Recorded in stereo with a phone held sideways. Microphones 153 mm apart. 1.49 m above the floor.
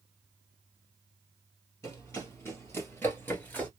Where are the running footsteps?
20° left (ahead or behind), 2 m; by 3.7 s 10° left (ahead or behind), 1.4 m.